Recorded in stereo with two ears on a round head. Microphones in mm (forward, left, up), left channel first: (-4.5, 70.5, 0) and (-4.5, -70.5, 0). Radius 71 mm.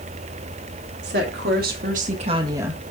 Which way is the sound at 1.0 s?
75° right (ahead or behind).